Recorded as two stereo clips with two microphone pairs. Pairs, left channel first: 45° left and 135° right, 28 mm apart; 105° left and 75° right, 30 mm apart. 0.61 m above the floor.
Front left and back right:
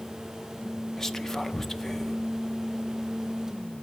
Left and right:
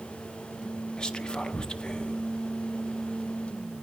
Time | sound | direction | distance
1.0 | whispering | 100° left | 0.6 m